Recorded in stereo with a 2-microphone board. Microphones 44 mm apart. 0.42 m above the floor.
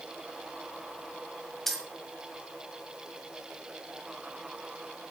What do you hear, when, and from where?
1.7 s keys jangling: 5° left (ahead or behind), 1.8 m